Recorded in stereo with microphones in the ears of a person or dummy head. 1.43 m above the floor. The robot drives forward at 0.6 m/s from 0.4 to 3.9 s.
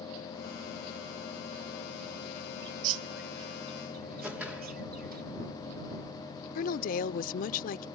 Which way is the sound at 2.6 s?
55° right (ahead or behind).